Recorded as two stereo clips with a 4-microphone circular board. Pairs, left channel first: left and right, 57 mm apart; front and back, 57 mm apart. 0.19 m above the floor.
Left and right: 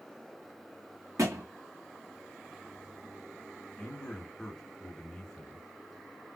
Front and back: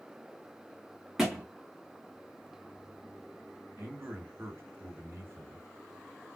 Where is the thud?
95° right, 1.8 m.